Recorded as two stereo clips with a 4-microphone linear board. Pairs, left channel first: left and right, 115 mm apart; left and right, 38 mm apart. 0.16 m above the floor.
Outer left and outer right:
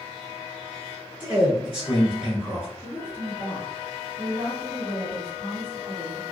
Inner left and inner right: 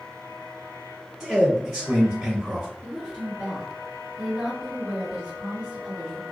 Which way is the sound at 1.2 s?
15° right (ahead or behind).